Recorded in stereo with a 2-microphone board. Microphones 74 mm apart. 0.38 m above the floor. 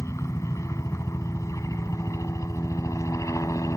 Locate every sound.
0.0 s a helicopter: 40° left (ahead or behind); by 3.8 s 45° left (ahead or behind)